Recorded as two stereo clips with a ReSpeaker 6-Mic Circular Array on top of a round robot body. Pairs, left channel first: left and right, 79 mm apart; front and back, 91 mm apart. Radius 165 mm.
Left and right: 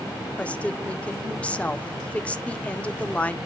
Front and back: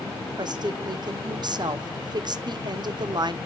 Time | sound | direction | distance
0.4 | a woman speaking | 160° left | 0.8 m